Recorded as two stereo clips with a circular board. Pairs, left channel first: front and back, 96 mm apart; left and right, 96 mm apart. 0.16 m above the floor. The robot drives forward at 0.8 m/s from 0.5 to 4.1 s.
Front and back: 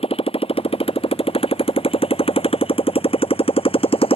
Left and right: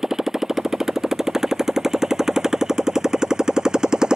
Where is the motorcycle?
5° right.